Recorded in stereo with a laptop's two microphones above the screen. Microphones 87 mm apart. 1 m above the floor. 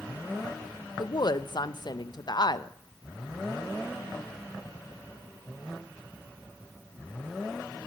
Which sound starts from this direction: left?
A woman speaking, at 1.0 s.